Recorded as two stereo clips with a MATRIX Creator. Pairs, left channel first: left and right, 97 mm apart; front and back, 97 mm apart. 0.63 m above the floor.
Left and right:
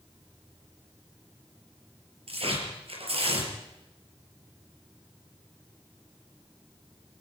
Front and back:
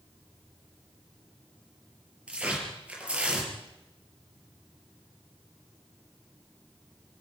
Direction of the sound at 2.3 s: 100° right.